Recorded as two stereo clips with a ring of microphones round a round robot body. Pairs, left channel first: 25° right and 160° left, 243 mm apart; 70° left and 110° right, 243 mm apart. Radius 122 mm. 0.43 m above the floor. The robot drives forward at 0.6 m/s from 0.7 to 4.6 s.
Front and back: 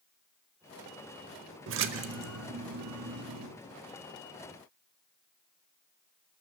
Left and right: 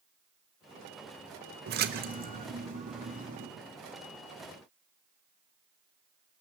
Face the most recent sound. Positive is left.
turn(degrees=-175)